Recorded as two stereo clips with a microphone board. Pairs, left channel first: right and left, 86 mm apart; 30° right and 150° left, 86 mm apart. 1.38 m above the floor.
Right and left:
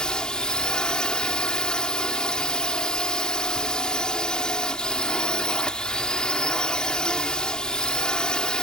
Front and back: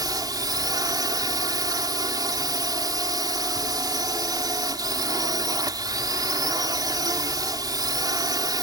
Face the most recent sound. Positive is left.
turn(degrees=-170)